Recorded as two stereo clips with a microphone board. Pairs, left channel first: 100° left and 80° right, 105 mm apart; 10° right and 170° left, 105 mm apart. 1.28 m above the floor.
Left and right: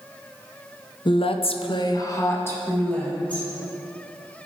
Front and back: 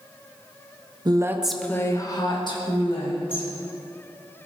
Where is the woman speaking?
130° left, 0.6 m; by 3.5 s 20° left, 2 m.